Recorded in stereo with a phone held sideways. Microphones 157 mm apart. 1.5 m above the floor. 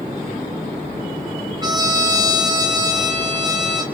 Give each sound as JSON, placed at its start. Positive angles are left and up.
{"t": 1.6, "sound": "a trumpet", "side_deg": -25, "distance_m": 1.8}